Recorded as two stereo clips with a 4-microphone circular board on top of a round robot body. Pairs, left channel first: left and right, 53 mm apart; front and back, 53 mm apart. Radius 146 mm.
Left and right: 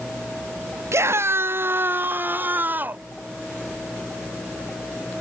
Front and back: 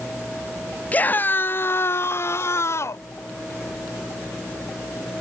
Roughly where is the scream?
Ahead right.